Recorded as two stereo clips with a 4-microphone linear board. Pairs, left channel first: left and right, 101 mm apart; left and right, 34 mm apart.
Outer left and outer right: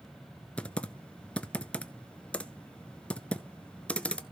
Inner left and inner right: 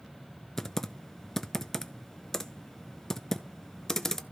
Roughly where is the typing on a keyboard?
Centre.